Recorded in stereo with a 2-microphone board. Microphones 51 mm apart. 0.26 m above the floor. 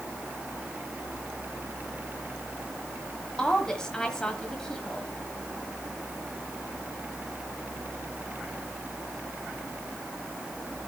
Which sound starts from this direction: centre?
A woman speaking, at 3.4 s.